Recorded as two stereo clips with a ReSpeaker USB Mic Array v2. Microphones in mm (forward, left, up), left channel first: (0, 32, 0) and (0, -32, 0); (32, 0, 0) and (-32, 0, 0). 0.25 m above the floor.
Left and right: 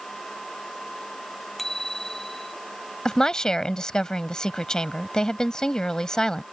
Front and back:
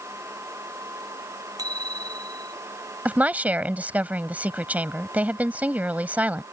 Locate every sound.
1.6 s a bicycle bell: 175° left
3.0 s a woman speaking: 155° left